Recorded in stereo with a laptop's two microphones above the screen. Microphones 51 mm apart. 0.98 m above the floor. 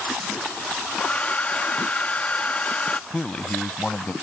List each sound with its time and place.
1.0 s a hair dryer: 25° left (ahead or behind)
3.1 s a man speaking: 25° left (ahead or behind)